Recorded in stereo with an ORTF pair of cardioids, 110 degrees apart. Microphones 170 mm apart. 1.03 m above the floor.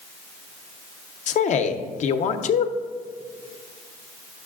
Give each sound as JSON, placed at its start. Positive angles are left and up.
{"t": 1.3, "sound": "a man speaking", "azimuth_deg": 45, "distance_m": 0.6}